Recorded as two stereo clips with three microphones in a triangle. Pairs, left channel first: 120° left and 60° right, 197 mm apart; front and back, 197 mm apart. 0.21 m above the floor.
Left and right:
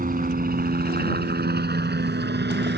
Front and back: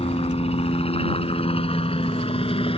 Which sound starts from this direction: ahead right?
A helicopter, at 0.0 s.